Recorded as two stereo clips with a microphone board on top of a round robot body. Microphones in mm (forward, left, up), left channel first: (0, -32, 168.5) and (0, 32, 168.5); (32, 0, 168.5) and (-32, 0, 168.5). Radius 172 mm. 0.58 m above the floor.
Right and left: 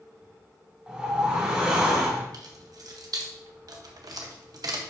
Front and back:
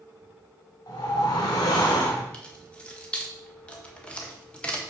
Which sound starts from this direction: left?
Keys jangling, at 2.3 s.